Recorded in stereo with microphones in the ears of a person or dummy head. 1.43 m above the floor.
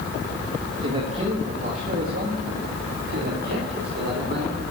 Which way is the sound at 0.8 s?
35° right (ahead or behind).